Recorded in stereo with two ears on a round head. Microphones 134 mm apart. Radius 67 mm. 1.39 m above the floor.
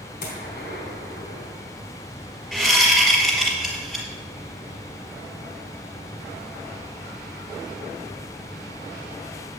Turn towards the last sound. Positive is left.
turn(degrees=0)  # may be behind; listen again after turning